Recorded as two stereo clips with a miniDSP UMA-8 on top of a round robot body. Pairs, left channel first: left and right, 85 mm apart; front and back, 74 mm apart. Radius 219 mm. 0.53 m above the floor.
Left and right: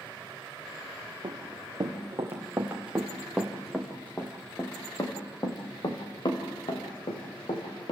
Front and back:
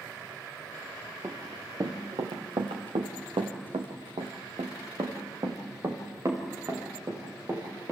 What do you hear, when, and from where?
1.2 s running footsteps: 140° right, 3.5 m; by 7.9 s 115° left, 5.5 m